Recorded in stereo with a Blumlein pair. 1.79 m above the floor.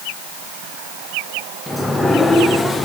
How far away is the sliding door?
About 1.1 m.